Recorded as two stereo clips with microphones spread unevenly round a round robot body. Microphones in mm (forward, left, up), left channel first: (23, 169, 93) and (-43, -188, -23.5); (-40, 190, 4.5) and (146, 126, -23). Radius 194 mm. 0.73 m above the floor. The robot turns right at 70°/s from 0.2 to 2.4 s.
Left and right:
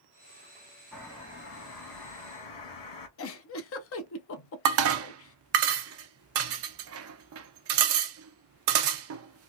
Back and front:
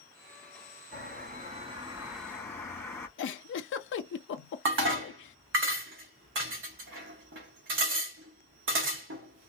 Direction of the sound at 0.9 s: 25° right.